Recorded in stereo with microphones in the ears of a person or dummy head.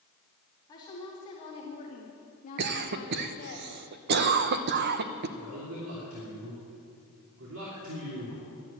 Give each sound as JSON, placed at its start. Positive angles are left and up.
{"t": 0.7, "sound": "a woman speaking", "side_deg": 20, "distance_m": 2.5}
{"t": 2.6, "sound": "a cough", "side_deg": -50, "distance_m": 0.8}
{"t": 5.4, "sound": "a man speaking", "side_deg": -75, "distance_m": 3.0}